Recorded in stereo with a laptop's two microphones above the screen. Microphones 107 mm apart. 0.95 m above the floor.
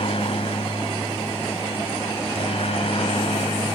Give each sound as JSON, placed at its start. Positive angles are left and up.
{"t": 0.0, "sound": "a helicopter", "side_deg": 60}